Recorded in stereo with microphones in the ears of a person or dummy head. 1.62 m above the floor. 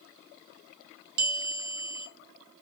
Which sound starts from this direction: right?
A bell, at 1.2 s.